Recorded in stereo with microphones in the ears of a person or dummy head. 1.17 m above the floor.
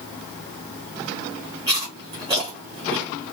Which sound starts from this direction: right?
Chewing, at 1.7 s.